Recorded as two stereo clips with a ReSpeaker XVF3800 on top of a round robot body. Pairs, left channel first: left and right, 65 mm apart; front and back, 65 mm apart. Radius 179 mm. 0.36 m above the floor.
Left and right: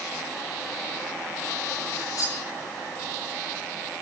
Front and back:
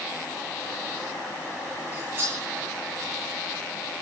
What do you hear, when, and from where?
1.9 s cutlery clinking: 125° left, 7 m